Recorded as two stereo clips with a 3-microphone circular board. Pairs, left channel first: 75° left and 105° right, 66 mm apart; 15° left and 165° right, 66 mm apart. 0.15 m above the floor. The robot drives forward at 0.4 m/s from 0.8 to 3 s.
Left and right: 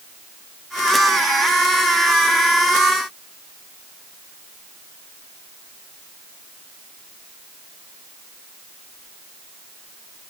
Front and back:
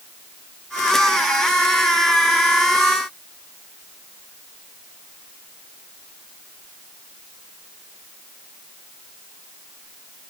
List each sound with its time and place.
Only background noise.